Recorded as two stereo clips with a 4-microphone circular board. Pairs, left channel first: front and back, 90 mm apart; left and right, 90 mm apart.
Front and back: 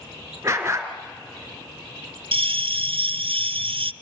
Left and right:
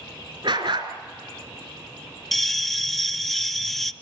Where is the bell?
Straight behind, 0.5 m.